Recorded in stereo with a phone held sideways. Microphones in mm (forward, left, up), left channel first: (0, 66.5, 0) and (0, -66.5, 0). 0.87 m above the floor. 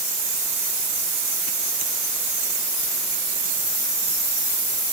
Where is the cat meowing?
No cat meowing in this recording.